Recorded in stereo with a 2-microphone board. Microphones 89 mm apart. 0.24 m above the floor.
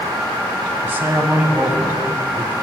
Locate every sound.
0.8 s a man speaking: 25° right (ahead or behind), 1.7 m